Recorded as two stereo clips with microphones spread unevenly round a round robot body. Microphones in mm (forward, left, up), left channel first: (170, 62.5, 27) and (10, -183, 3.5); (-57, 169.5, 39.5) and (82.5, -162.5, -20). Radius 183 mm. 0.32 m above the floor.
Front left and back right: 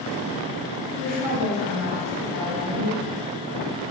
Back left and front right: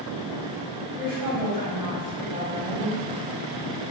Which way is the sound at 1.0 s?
85° left.